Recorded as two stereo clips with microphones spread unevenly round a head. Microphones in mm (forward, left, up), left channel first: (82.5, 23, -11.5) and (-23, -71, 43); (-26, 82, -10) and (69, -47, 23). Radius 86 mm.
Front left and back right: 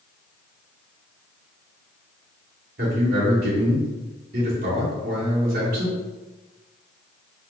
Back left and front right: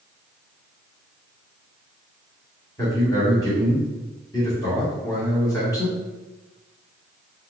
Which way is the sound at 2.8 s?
160° right.